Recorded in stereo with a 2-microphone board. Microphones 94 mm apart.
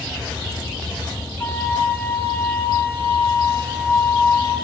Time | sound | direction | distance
1.4 | a flute | 25° left (ahead or behind) | 1.8 m